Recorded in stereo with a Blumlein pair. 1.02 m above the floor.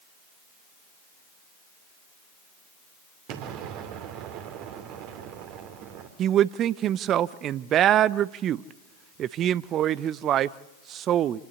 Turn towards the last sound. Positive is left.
turn(degrees=-30)